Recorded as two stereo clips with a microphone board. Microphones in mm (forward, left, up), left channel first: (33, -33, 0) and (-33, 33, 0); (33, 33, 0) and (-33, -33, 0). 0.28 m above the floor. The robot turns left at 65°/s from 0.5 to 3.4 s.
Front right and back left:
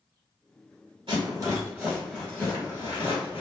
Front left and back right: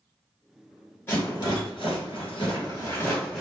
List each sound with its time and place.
1.1 s a rattle: 110° left, 1.3 m; by 3.4 s 40° right, 1.3 m